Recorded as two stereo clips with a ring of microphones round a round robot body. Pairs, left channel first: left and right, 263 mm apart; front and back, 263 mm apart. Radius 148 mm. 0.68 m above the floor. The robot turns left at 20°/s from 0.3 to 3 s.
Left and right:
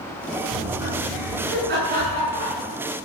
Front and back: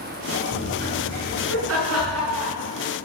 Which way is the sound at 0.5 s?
125° right.